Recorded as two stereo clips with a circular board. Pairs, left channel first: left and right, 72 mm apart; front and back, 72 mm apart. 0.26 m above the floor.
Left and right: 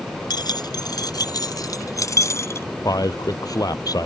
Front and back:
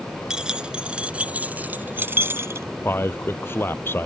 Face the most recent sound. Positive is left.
turn(degrees=60)